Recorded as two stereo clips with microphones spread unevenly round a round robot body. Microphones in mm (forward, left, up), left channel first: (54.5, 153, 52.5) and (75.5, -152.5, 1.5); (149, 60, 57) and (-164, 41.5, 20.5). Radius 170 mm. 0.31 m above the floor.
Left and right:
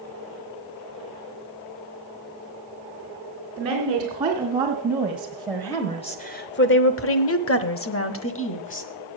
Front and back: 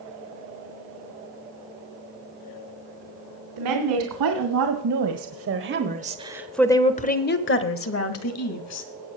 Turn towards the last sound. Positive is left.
turn(degrees=40)